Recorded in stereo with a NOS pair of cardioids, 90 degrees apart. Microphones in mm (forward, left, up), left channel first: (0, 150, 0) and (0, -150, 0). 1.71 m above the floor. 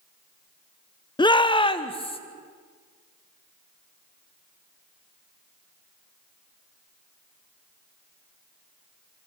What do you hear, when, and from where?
1.2 s a shout: 15° left, 1.2 m; by 2.2 s 20° left, 2.5 m